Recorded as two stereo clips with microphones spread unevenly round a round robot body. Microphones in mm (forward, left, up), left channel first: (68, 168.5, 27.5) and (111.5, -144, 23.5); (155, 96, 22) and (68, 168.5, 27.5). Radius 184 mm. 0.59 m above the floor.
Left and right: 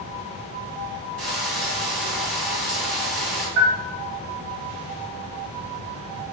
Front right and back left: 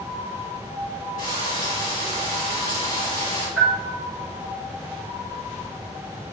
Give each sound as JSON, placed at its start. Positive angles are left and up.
{"t": 1.2, "sound": "frying", "azimuth_deg": -70, "distance_m": 3.5}
{"t": 3.6, "sound": "a bell", "azimuth_deg": -130, "distance_m": 3.5}